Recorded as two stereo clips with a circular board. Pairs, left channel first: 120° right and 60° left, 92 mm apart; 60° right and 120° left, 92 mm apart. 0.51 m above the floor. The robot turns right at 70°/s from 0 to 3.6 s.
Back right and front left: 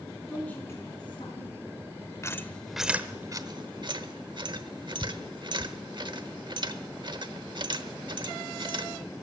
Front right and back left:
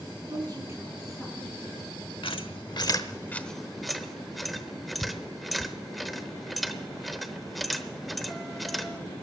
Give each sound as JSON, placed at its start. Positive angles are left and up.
{"t": 0.3, "sound": "a woman speaking", "azimuth_deg": 150, "distance_m": 6.0}
{"t": 2.2, "sound": "a squeak", "azimuth_deg": -65, "distance_m": 0.9}